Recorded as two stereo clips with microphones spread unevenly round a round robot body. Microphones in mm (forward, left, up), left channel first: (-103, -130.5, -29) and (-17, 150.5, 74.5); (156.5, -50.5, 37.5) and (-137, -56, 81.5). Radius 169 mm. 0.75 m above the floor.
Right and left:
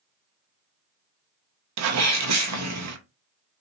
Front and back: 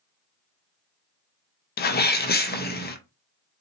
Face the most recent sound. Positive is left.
turn(degrees=30)